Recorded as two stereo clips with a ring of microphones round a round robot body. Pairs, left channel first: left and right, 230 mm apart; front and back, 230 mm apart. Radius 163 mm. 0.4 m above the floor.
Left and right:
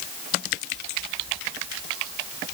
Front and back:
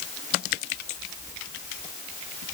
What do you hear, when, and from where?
Only background noise.